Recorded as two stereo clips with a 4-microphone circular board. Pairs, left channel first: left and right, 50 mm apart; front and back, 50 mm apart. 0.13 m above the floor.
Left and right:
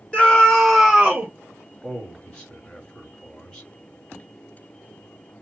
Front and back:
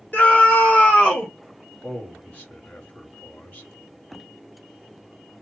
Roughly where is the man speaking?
Ahead left.